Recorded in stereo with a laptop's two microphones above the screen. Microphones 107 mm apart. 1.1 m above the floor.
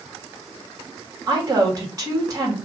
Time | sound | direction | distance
1.3 | a woman speaking | 30° right (ahead or behind) | 2 m